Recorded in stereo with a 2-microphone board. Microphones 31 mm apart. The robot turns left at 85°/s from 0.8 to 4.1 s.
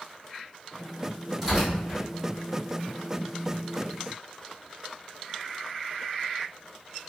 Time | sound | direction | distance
1.4 | tearing paper | centre (ahead or behind) | 1.6 m